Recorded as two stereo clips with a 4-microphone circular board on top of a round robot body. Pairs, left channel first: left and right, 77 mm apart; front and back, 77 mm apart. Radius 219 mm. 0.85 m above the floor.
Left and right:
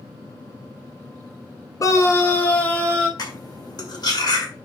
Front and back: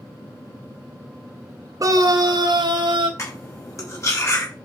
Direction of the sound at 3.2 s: 55° left.